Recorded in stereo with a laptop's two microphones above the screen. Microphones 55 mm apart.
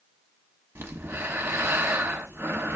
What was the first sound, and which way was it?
Breathing, 50° right (ahead or behind).